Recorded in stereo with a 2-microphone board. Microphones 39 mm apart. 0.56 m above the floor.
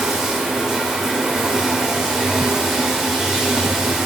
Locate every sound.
0.0 s running water: 10° right (ahead or behind), 1.2 m